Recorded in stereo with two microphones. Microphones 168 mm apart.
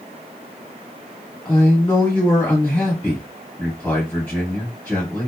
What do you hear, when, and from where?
1.4 s a man speaking: 10° left (ahead or behind), 1.2 m